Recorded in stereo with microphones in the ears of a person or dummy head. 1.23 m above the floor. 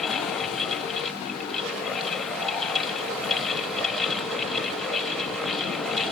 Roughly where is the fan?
Centre.